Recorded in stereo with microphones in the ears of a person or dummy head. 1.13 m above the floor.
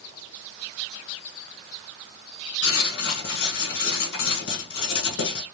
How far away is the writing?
About 1.4 m.